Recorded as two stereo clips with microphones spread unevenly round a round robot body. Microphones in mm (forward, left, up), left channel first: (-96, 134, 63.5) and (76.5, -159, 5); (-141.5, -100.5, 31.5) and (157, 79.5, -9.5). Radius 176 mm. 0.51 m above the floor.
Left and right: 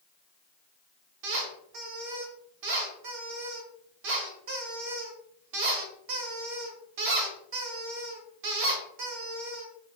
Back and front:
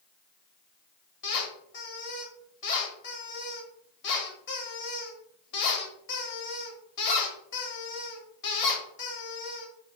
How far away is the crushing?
No crushing in this recording.